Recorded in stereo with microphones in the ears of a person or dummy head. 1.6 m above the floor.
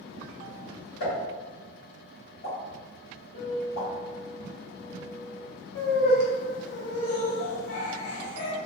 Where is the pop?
65° left (ahead or behind), 1.8 m.